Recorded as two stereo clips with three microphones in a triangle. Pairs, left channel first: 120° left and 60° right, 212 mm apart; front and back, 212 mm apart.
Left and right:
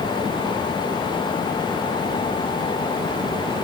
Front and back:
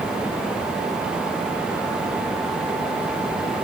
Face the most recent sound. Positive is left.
No sound to turn to.